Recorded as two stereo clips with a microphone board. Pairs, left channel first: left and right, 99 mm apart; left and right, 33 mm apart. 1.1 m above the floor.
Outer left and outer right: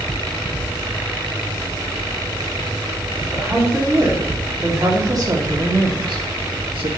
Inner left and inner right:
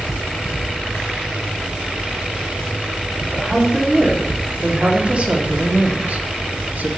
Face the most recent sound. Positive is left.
turn(degrees=-70)  # may be behind; listen again after turning